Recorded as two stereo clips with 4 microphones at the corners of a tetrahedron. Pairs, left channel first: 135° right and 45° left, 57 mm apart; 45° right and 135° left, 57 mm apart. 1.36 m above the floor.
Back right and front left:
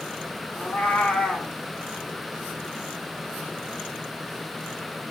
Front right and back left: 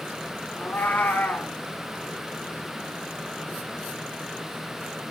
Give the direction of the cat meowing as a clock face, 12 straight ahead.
3 o'clock.